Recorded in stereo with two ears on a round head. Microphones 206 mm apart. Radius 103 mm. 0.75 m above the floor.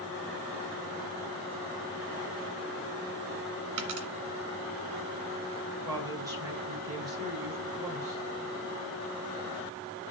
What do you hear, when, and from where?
3.8 s a dropped coin: 65° right (ahead or behind), 2.0 m
5.8 s a woman speaking: 15° right (ahead or behind), 4.5 m